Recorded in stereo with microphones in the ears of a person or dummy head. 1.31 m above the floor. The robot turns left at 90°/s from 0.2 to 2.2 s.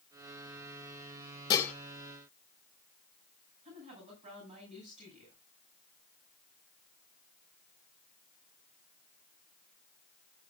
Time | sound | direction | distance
1.5 | dishes clattering | 25° left (ahead or behind) | 1.3 m
3.6 | a woman speaking | 35° right (ahead or behind) | 8.5 m